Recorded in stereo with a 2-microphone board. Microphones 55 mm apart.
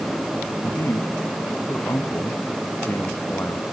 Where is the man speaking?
50° left (ahead or behind); by 3.6 s 45° left (ahead or behind).